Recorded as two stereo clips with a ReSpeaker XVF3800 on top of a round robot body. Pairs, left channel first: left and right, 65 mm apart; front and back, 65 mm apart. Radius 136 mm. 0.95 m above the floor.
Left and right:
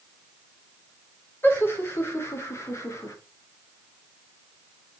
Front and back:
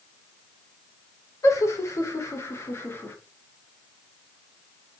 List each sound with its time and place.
1.4 s laughter: 35° left, 3.5 m; by 3.2 s 55° left, 3 m